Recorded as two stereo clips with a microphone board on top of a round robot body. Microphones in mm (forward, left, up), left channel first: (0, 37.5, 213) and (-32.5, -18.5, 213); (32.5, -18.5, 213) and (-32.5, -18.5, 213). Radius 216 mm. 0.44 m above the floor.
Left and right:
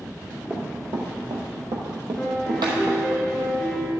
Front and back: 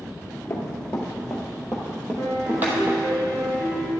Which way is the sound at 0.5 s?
55° right.